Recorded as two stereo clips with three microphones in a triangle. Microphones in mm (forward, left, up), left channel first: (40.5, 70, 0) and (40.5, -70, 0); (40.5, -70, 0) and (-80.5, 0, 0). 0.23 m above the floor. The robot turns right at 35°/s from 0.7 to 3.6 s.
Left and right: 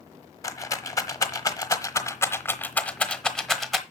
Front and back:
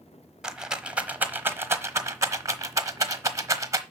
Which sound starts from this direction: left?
A rattle, at 0.4 s.